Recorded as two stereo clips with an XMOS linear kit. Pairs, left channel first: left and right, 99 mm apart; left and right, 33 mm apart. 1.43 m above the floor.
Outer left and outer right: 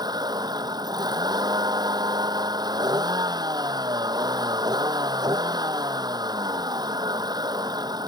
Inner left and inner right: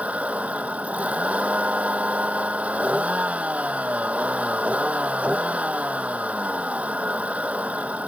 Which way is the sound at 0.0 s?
45° right (ahead or behind).